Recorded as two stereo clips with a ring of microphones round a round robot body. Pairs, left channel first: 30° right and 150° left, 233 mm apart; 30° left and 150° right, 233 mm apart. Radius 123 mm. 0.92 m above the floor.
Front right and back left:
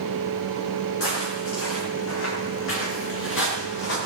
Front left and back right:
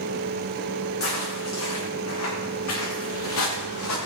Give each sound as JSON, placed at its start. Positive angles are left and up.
{"t": 1.0, "sound": "footsteps", "azimuth_deg": 5, "distance_m": 8.5}